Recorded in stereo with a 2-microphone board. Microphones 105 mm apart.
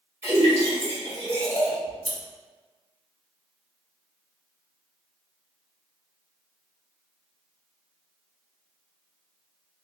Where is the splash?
25° right (ahead or behind), 1.9 m.